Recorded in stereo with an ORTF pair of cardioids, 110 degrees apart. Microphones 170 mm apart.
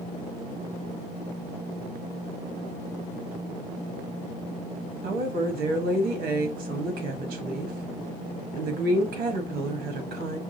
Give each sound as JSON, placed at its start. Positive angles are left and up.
{"t": 5.0, "sound": "a woman speaking", "azimuth_deg": -65, "distance_m": 1.4}